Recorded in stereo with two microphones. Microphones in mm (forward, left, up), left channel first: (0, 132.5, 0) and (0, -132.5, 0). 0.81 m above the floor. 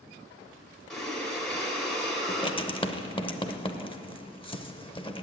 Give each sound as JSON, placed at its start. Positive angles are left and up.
{"t": 0.9, "sound": "breathing", "side_deg": 0, "distance_m": 1.9}
{"t": 2.3, "sound": "writing", "side_deg": 20, "distance_m": 0.7}